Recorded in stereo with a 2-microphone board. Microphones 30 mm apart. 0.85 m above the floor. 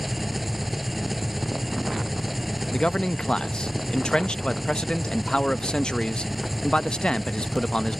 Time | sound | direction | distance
0.0 | an engine running | 5° right (ahead or behind) | ?
2.7 | a man speaking | 30° left (ahead or behind) | ?